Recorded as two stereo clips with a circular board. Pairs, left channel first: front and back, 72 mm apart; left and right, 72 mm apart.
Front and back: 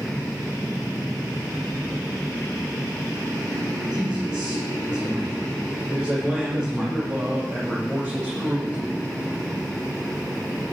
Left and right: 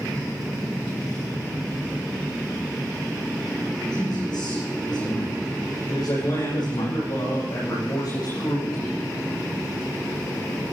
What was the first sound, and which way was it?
A man speaking, 100° left.